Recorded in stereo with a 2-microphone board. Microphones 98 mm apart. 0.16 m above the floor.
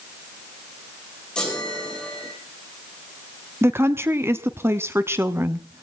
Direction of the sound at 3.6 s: 25° right (ahead or behind).